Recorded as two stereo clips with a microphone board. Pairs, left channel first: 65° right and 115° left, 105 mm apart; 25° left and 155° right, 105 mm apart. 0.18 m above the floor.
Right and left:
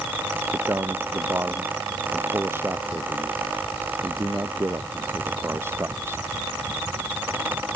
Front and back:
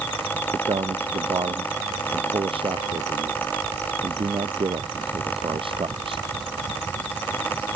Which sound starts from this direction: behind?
A man speaking, at 0.5 s.